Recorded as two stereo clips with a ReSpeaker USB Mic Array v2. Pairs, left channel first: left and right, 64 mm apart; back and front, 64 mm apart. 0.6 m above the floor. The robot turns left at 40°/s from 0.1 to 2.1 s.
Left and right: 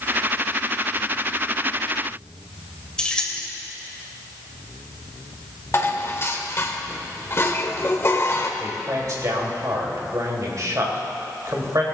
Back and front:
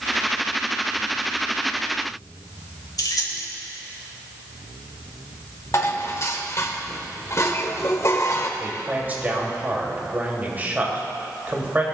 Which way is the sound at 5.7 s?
140° left.